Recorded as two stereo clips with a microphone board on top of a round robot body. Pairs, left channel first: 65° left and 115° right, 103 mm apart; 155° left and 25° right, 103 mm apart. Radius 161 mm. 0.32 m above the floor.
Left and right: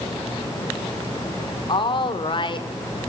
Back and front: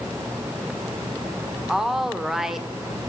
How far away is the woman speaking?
About 1.7 m.